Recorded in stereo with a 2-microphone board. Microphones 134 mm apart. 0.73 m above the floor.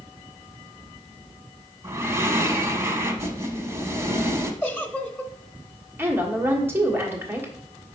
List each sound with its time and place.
1.8 s breathing: 20° right (ahead or behind), 0.9 m
4.6 s a giggle: 10° left (ahead or behind), 0.7 m
6.0 s a woman speaking: 15° right (ahead or behind), 1.5 m